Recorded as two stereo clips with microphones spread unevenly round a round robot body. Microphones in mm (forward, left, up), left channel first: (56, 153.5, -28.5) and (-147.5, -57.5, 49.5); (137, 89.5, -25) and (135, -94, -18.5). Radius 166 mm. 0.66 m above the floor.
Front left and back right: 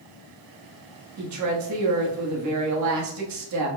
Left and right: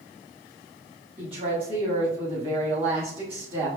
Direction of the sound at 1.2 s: 150° right.